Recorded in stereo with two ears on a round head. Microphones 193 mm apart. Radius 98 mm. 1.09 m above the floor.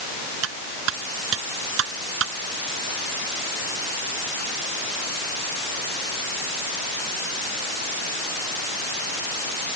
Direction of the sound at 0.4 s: 60° right (ahead or behind).